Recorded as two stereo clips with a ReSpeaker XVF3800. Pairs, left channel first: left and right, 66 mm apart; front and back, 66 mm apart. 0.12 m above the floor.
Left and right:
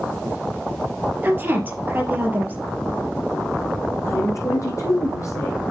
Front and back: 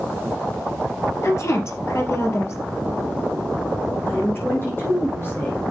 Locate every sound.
1.2 s a woman speaking: 35° right, 3.5 m
4.0 s a woman speaking: 55° left, 4.5 m